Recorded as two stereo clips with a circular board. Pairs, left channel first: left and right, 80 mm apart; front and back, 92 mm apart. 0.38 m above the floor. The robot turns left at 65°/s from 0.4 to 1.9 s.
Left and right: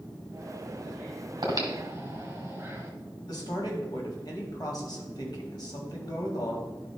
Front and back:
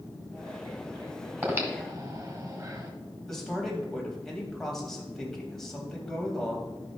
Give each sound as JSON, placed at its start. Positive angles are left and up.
{"t": 1.4, "sound": "breathing", "azimuth_deg": -110, "distance_m": 1.8}
{"t": 3.3, "sound": "a man speaking", "azimuth_deg": 85, "distance_m": 2.0}